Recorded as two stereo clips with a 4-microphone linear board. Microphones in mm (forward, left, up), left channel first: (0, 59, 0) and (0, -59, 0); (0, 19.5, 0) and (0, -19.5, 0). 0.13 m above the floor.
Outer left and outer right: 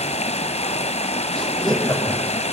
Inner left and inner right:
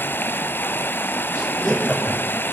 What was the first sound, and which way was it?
Running water, 65° left (ahead or behind).